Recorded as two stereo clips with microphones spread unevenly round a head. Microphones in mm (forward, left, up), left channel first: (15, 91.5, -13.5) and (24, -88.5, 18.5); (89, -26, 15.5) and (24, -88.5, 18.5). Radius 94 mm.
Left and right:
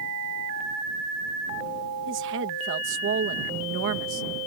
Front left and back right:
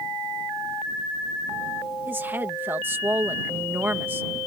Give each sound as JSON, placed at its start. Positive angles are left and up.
{"t": 2.1, "sound": "a woman speaking", "azimuth_deg": -70}